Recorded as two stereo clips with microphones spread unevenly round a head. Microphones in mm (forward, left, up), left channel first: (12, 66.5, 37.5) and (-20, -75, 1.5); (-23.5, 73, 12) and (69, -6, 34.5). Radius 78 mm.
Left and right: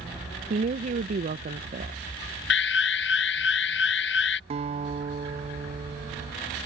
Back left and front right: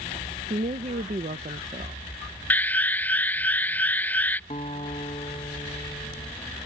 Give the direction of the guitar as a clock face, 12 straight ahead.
5 o'clock.